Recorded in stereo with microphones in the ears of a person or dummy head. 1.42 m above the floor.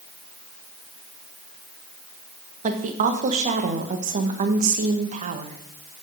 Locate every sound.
2.6 s a woman speaking: 40° right (ahead or behind), 1.4 m